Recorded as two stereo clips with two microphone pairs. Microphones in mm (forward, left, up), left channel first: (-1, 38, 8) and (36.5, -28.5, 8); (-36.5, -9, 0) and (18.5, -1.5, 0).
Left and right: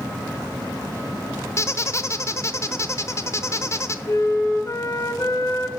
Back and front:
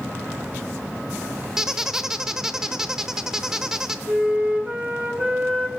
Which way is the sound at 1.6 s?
85° left.